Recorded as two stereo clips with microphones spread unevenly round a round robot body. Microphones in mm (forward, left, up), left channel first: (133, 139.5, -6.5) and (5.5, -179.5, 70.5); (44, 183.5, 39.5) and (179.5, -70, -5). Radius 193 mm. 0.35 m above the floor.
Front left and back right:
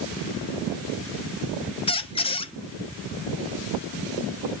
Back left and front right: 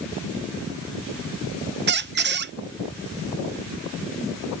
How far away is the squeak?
About 0.5 m.